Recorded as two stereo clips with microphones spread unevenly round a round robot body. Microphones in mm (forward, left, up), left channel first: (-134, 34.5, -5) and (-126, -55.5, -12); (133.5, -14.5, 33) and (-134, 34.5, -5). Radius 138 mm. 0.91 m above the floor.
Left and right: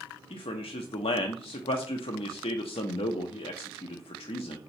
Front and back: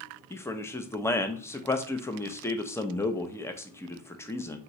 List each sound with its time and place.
0.3 s a man speaking: 75° left, 0.5 m